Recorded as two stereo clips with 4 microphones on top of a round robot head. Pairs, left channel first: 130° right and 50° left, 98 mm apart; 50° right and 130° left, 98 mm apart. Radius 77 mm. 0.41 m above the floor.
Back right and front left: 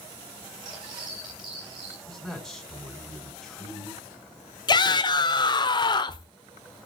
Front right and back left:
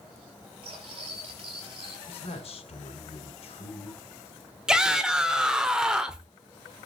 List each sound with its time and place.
0.6 s cutlery clinking: 95° left, 6.5 m
2.1 s a man speaking: 45° right, 4.5 m
4.7 s a shout: 150° right, 1.1 m